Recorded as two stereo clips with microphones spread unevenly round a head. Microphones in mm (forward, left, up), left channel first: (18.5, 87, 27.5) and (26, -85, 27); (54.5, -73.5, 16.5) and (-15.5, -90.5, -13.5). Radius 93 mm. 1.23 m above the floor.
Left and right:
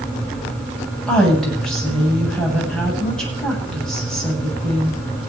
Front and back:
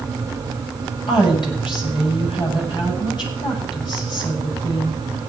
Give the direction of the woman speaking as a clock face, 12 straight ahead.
12 o'clock.